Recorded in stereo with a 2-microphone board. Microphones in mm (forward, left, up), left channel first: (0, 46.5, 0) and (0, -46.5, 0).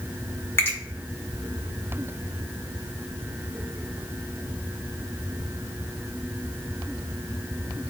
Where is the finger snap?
25° left (ahead or behind), 1.6 m.